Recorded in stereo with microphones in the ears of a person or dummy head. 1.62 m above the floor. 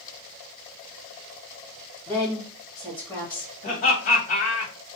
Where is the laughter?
40° left (ahead or behind), 2.0 m.